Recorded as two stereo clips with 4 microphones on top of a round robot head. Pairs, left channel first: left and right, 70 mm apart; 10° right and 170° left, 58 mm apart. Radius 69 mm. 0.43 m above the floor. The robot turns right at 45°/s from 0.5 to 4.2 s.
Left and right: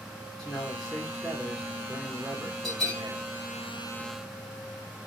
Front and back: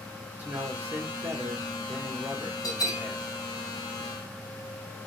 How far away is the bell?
About 1.9 m.